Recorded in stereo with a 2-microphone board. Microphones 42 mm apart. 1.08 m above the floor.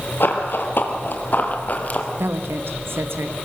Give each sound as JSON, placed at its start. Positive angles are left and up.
{"t": 0.2, "sound": "running footsteps", "side_deg": 60, "distance_m": 2.5}
{"t": 2.2, "sound": "a woman speaking", "side_deg": -70, "distance_m": 1.2}